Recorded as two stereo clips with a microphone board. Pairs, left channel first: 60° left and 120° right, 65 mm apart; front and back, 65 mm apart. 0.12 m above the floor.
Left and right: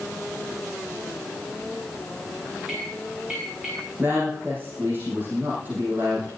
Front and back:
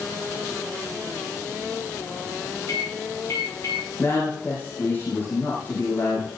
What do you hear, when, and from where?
2.7 s a microwave: 40° right, 8.5 m
4.0 s a woman speaking: 60° right, 6.5 m